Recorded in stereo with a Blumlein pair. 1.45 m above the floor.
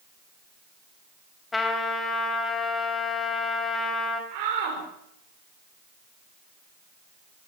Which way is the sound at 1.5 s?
10° left.